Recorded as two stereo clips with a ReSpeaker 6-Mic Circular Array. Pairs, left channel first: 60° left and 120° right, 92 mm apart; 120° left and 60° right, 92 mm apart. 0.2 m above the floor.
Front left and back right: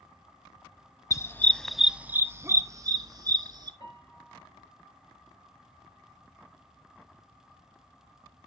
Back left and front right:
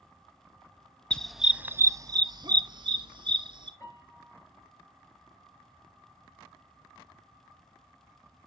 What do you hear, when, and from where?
1.1 s a dog barking: 50° left, 0.5 m; by 3.7 s 80° right, 1.3 m
3.8 s a piano: 70° left, 3 m